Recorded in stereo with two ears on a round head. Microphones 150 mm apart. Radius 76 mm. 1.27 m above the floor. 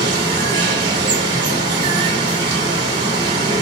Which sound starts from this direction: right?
Running water, at 0.0 s.